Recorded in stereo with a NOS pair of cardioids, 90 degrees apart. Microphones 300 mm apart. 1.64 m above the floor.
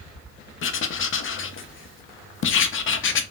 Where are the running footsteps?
No running footsteps in this recording.